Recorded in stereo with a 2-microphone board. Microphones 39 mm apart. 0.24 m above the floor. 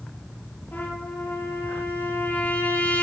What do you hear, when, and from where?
0.7 s a trumpet: 65° left (ahead or behind), 5.5 m